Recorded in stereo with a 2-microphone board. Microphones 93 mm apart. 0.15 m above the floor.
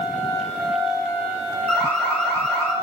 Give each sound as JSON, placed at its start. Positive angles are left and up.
{"t": 1.7, "sound": "an alarm", "side_deg": 15, "distance_m": 4.0}